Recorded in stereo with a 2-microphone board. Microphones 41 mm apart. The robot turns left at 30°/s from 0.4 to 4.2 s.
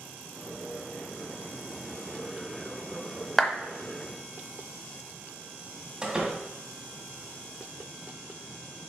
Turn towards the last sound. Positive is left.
turn(degrees=-20)  # may be behind; listen again after turning